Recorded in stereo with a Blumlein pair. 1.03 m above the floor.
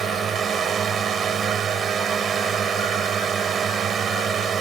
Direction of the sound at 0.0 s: 20° right.